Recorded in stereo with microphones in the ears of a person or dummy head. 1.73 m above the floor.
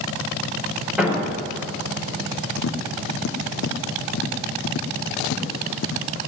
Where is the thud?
10° right (ahead or behind), 5 m.